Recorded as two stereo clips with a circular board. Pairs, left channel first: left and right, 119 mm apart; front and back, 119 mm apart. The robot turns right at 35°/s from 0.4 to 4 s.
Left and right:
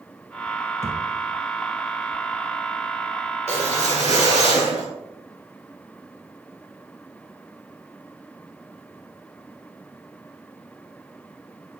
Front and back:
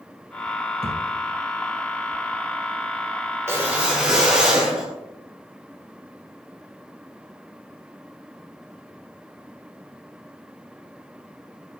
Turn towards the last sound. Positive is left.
turn(degrees=-95)